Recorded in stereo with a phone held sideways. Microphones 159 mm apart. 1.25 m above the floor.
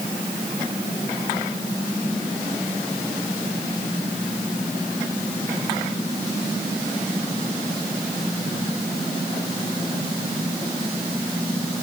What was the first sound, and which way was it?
Only background noise.